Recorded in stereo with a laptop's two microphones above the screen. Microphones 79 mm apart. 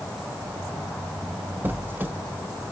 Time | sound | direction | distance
1.6 | a squeak | 25° right (ahead or behind) | 0.6 m